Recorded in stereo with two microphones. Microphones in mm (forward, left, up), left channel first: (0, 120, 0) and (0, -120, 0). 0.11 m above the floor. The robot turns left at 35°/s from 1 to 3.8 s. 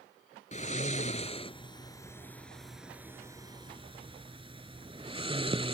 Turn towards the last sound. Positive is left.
turn(degrees=-20)  # may be behind; listen again after turning